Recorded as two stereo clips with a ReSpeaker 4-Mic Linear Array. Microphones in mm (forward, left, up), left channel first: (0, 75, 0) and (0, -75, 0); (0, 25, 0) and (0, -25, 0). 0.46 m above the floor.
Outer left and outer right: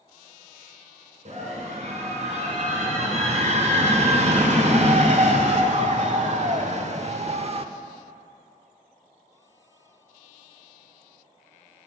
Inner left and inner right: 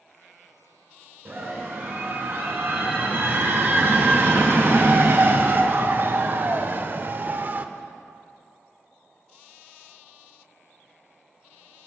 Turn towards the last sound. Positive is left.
turn(degrees=-40)  # may be behind; listen again after turning